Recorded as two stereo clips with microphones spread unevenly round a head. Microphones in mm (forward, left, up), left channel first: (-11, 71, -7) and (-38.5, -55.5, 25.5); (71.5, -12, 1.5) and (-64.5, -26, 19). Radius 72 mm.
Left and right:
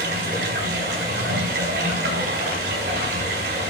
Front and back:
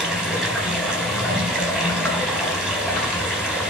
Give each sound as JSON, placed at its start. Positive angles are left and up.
{"t": 0.0, "sound": "running water", "azimuth_deg": -90, "distance_m": 4.0}